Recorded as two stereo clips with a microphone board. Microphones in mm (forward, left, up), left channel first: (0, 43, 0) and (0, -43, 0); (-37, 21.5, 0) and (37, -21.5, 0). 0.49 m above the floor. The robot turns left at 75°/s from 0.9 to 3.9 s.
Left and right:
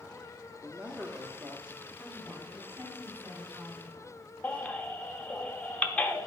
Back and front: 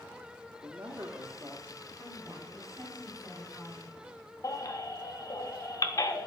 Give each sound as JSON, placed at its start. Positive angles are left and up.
{"t": 0.6, "sound": "a man speaking", "azimuth_deg": -20, "distance_m": 0.9}
{"t": 2.0, "sound": "a woman speaking", "azimuth_deg": 10, "distance_m": 4.5}
{"t": 4.4, "sound": "a baby crying", "azimuth_deg": 160, "distance_m": 0.8}